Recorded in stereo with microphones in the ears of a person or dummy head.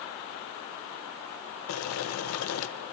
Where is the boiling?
80° left, 0.7 m.